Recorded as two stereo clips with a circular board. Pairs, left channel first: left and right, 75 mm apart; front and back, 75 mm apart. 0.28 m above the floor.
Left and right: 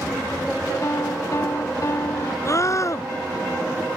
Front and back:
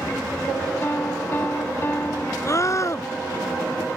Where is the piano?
55° left.